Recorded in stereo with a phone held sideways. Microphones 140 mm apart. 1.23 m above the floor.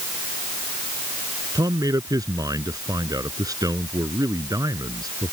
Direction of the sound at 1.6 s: 25° right (ahead or behind).